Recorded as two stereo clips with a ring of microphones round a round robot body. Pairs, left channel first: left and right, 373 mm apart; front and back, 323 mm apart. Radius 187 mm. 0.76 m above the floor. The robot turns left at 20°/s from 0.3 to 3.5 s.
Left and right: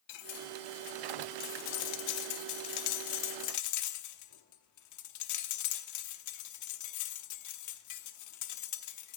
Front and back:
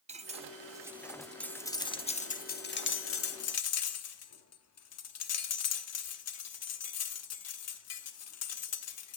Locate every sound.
0.1 s cutlery clinking: 110° left, 1.0 m; by 9.2 s 45° left, 1.0 m